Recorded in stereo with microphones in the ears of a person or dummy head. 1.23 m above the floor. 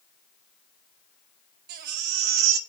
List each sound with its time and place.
1.7 s a baby crying: 60° right (ahead or behind), 0.8 m